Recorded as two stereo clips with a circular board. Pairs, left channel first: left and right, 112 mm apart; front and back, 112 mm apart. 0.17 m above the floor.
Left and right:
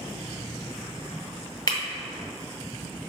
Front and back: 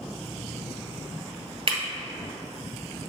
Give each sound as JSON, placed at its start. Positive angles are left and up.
{"t": 1.7, "sound": "breaking glass", "azimuth_deg": 145, "distance_m": 1.3}